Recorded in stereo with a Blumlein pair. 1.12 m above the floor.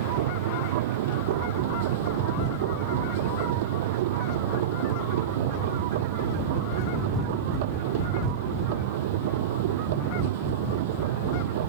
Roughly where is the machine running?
Ahead right.